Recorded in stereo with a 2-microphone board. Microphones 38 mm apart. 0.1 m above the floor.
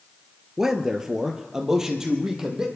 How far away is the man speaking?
About 1.5 m.